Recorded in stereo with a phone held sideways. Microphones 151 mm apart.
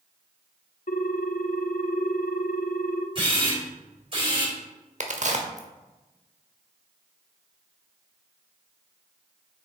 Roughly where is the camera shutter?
Right.